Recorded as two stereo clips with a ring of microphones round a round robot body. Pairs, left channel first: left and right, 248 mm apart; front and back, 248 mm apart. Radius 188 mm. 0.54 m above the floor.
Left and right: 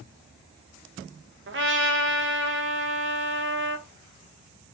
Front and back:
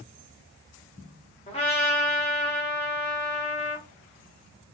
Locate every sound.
1.5 s a trumpet: 60° right, 0.8 m